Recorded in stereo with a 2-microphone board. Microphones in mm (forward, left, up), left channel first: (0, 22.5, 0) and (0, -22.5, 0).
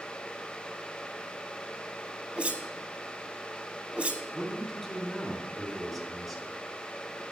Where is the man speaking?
Centre (ahead or behind), 2.5 m.